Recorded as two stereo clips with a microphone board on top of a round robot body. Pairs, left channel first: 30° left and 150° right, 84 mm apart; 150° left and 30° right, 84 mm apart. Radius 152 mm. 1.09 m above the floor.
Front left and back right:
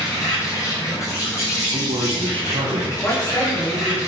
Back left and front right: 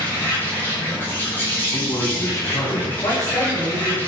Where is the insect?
85° left, 6 m.